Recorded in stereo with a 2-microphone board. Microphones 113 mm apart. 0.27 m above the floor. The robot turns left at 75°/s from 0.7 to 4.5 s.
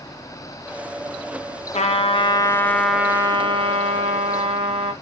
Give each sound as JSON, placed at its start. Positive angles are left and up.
{"t": 1.7, "sound": "a trumpet", "azimuth_deg": 85, "distance_m": 0.7}